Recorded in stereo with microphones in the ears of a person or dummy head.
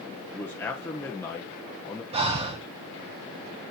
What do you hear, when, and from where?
0.3 s a man speaking: 15° left (ahead or behind), 1.0 m
2.1 s breathing: 30° right (ahead or behind), 0.8 m